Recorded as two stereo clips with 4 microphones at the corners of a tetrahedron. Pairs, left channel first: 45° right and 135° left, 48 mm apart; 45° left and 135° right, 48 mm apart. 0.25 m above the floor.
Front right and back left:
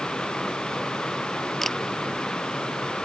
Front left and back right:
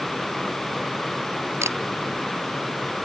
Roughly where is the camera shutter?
Behind right.